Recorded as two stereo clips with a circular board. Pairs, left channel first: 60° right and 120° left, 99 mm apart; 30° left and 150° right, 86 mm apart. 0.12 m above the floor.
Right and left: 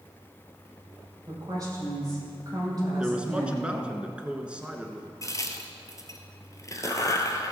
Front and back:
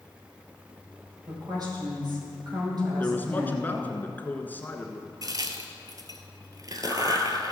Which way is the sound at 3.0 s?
55° left.